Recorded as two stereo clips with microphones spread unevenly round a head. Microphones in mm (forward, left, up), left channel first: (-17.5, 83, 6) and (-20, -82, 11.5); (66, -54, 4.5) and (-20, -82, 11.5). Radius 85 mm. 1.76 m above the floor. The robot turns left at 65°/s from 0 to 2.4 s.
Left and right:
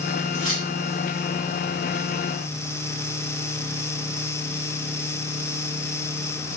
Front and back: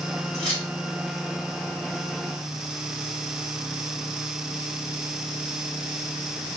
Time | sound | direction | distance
0.3 | keys jangling | 45° left | 2.5 m